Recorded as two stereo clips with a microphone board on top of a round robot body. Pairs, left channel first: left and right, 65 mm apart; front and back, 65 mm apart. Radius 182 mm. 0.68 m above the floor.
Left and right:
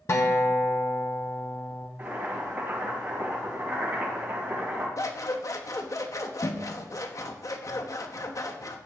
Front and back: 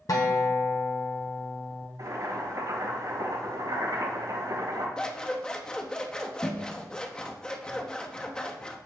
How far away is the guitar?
About 0.8 m.